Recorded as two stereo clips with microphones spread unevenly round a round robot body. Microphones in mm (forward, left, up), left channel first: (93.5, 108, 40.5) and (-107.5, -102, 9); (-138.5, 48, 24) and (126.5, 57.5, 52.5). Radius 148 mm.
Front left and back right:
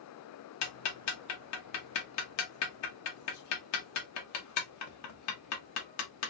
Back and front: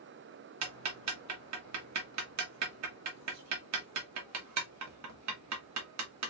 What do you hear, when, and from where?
0.6 s ticking: 15° left, 1.1 m